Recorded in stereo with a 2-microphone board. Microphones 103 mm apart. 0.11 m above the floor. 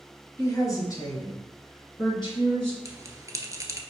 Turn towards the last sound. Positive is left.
turn(degrees=-35)  # may be behind; listen again after turning